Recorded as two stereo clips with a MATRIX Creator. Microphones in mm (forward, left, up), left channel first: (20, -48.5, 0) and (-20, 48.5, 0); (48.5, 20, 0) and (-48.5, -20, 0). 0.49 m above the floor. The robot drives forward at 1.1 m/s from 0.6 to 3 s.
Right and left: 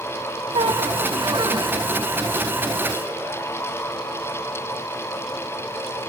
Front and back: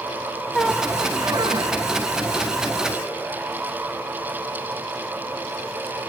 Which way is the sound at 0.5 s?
105° left.